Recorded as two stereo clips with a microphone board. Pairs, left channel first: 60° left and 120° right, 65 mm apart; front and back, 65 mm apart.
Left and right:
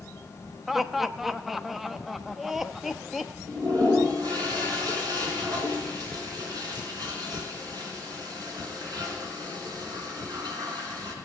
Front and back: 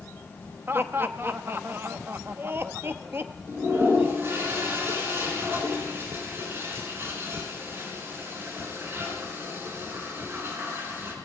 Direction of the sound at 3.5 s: 130° right.